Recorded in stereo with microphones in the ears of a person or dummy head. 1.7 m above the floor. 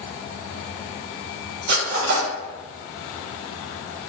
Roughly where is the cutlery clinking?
Right.